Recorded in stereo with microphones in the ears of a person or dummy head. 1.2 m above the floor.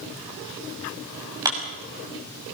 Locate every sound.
1.4 s a clap: 15° right (ahead or behind), 6 m